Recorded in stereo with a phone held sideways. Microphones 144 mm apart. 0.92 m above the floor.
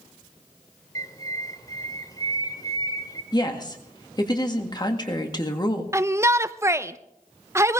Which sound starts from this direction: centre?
A shout, at 5.9 s.